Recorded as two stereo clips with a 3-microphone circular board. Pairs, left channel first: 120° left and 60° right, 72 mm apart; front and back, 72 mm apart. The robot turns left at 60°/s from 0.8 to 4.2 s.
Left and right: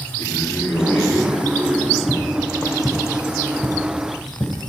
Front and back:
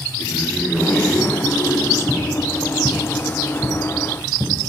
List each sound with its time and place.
0.2 s a man speaking: 75° left, 3.5 m; by 2.0 s 5° left, 3.5 m
2.1 s footsteps: 150° right, 2.5 m; by 4.5 s 160° left, 2 m